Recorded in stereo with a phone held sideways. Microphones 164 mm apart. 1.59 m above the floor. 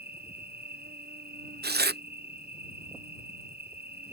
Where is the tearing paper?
80° right.